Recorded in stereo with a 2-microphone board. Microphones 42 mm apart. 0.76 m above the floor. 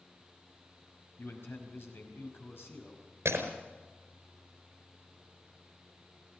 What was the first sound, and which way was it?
A man speaking, 65° left (ahead or behind).